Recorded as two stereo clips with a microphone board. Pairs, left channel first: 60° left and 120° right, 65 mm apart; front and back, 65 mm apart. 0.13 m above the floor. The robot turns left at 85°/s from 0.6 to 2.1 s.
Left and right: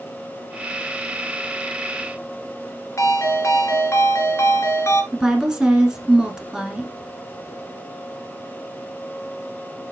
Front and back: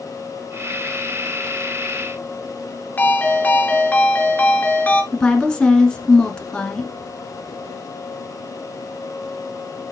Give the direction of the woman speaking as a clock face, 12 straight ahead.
2 o'clock.